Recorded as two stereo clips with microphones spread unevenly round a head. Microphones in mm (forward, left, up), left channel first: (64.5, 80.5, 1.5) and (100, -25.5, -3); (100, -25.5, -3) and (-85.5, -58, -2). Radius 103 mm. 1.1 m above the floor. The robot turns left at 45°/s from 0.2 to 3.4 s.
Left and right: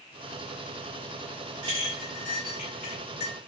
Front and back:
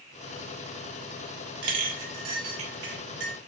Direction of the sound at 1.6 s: 145° right.